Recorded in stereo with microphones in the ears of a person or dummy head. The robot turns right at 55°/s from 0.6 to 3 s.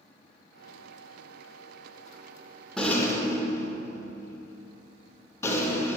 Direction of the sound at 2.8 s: Centre (ahead or behind).